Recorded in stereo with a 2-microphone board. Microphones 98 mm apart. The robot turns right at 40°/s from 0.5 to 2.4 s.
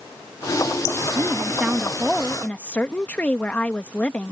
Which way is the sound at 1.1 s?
35° right.